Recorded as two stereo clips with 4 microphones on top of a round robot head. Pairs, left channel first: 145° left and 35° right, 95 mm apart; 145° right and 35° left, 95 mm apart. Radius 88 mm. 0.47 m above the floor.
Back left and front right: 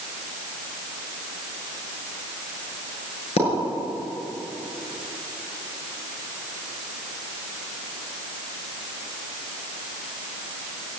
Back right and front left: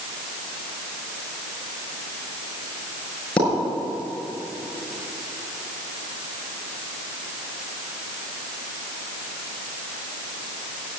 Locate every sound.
3.4 s a pop: 140° left, 6.5 m